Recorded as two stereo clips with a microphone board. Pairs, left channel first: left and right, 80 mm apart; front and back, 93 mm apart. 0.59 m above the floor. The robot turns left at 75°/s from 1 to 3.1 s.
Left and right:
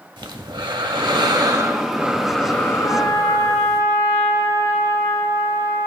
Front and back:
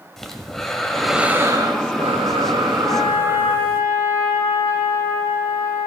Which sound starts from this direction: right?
Breathing, at 0.2 s.